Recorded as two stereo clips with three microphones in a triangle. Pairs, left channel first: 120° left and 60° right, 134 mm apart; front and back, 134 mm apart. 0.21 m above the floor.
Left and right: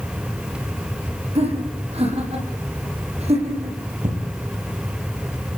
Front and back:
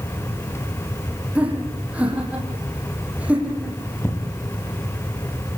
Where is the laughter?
100° right, 8 m.